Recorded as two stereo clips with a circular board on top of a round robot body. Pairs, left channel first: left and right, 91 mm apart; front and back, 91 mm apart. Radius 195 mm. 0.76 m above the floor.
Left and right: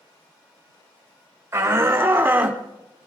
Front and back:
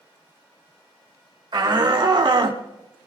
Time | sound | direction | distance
1.5 | a shout | 145° right | 3.5 m